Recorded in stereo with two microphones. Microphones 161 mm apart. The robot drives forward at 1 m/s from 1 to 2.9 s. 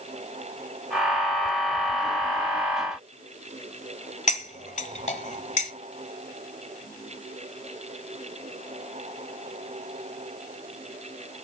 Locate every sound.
4.3 s cutlery clinking: 45° left (ahead or behind), 1.1 m